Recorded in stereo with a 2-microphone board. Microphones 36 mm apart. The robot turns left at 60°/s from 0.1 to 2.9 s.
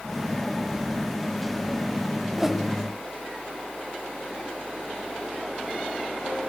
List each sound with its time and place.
2.4 s a whoosh: 15° right (ahead or behind), 1.0 m; by 2.6 s centre (ahead or behind), 1.0 m